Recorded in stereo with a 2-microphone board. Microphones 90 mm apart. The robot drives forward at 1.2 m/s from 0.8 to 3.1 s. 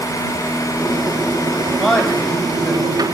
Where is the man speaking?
Centre (ahead or behind), 3 m.